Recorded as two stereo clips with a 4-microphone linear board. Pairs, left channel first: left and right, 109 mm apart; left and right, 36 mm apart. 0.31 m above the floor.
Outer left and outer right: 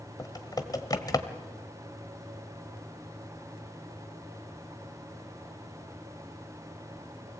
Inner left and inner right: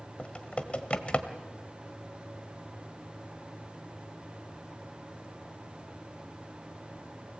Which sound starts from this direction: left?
Typing on a keyboard, at 0.2 s.